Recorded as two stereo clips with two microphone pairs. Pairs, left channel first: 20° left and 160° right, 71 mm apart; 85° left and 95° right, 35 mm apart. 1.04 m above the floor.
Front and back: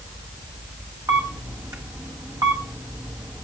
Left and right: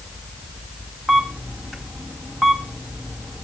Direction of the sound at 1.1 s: 175° left.